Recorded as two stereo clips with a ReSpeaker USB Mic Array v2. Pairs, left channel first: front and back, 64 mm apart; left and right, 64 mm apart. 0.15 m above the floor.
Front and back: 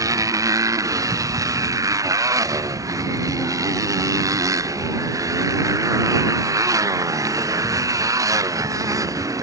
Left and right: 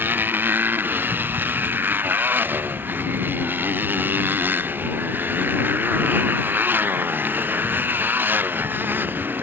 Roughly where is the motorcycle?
Behind right.